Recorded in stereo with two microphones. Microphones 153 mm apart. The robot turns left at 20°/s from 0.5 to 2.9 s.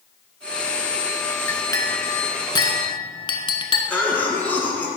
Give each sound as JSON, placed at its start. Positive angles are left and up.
{"t": 1.5, "sound": "a clink", "side_deg": 20, "distance_m": 0.8}
{"t": 3.9, "sound": "a cough", "side_deg": 10, "distance_m": 1.5}